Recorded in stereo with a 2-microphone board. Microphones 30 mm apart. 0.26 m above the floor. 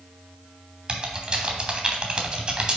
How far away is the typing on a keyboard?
About 1.0 m.